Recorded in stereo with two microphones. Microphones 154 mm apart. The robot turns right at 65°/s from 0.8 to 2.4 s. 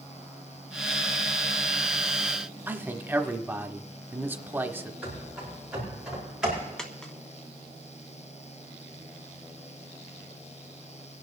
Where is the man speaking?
15° right (ahead or behind), 0.9 m.